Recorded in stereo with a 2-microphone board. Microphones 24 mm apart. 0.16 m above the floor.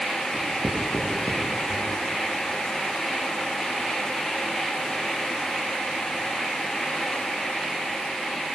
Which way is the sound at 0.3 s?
20° left (ahead or behind).